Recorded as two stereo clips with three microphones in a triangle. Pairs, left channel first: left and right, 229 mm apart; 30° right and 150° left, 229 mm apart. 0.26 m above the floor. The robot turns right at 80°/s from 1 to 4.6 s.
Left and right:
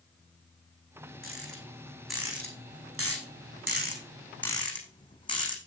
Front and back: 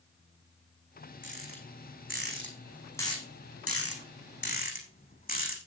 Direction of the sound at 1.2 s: 110° left.